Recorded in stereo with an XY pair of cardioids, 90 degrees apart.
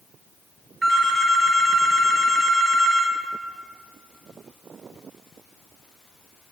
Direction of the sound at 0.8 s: 35° right.